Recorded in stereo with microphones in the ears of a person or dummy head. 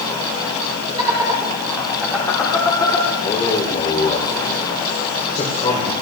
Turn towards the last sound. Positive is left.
turn(degrees=25)  # may be behind; listen again after turning